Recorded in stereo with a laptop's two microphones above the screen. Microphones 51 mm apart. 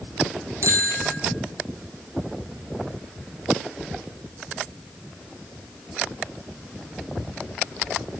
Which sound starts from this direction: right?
A bicycle bell, at 0.6 s.